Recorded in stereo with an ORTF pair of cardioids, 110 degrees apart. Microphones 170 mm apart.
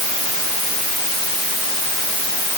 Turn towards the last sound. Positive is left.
No sound to turn to.